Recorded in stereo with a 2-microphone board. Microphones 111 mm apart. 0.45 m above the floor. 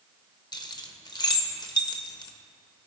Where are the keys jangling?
40° left (ahead or behind), 0.7 m.